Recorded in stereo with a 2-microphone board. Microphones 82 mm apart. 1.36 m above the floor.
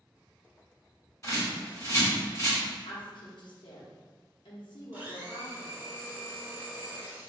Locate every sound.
1.2 s a bird: 35° left (ahead or behind), 1.3 m
2.9 s a woman speaking: 65° left (ahead or behind), 0.8 m
4.9 s a blender: 20° right (ahead or behind), 1.4 m